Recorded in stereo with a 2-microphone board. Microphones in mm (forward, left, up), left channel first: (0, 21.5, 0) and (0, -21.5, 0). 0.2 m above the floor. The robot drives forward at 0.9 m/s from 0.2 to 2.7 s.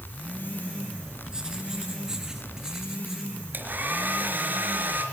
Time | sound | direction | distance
1.3 | writing | 15° right (ahead or behind) | 3.5 m
3.5 | a hair dryer | 45° right (ahead or behind) | 3.5 m